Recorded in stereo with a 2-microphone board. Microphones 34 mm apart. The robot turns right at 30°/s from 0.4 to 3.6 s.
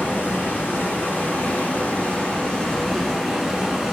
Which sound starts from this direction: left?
Running water, at 0.0 s.